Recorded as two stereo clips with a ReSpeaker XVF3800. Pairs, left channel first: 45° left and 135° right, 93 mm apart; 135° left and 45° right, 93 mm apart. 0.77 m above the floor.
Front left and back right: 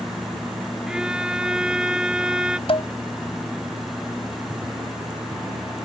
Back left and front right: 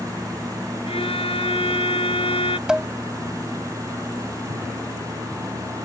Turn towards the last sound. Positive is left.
turn(degrees=35)